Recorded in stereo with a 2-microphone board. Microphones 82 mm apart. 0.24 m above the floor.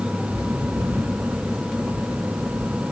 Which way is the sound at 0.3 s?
55° right (ahead or behind).